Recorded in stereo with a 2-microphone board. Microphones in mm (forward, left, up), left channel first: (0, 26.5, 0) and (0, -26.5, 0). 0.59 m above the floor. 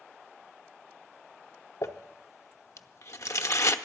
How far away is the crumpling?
About 0.6 m.